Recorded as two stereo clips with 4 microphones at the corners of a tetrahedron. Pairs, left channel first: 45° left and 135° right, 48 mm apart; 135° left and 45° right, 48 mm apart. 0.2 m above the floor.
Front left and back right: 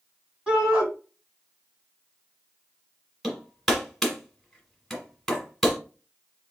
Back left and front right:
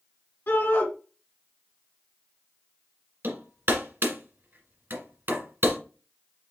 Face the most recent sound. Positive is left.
turn(degrees=-40)